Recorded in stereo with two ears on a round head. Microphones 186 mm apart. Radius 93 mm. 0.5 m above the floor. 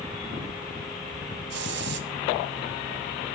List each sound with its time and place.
1.5 s a hiss: 60° right (ahead or behind), 1.5 m